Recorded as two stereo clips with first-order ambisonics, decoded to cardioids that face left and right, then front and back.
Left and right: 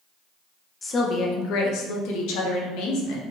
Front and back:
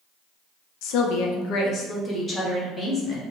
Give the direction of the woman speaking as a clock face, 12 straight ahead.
11 o'clock.